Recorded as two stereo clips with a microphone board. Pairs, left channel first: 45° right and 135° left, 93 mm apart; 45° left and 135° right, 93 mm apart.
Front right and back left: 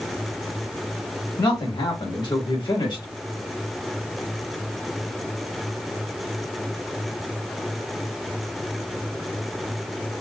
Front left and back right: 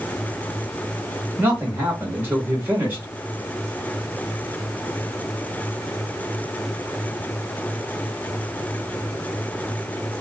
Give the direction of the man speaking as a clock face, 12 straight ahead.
2 o'clock.